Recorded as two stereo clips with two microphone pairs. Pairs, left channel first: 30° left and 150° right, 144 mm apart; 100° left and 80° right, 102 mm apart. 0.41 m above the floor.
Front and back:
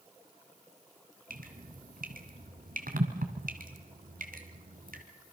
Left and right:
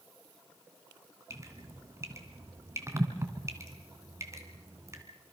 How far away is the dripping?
About 2.5 m.